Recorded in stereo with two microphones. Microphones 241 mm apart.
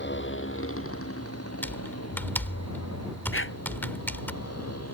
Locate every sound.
0.0 s a motorcycle: 50° left (ahead or behind); by 4.9 s 80° left
1.6 s typing on a keyboard: 10° left (ahead or behind)
3.3 s a dog barking: 60° left (ahead or behind)